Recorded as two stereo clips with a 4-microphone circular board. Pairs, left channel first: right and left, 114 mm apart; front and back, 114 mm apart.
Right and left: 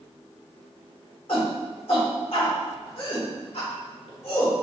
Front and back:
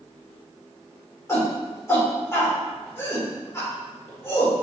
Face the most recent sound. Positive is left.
turn(degrees=-65)